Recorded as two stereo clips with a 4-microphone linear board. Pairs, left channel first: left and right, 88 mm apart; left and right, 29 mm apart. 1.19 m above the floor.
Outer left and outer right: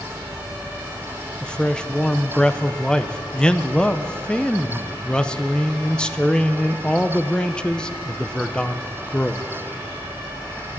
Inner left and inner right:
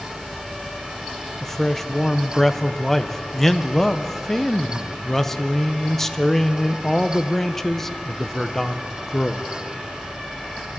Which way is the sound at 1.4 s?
10° left (ahead or behind).